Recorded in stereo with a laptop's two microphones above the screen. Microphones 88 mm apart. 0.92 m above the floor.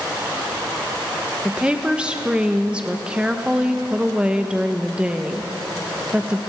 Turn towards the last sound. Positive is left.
turn(degrees=-10)  # may be behind; listen again after turning